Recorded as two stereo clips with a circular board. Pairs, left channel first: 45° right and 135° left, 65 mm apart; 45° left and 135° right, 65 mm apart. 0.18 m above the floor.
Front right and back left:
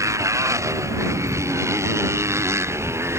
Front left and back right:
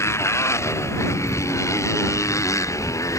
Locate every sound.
0.0 s a motorcycle: 95° left; by 3.2 s 85° left